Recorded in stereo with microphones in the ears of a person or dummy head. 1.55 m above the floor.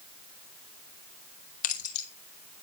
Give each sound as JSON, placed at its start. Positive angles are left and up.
{"t": 1.6, "sound": "keys jangling", "side_deg": 50, "distance_m": 2.5}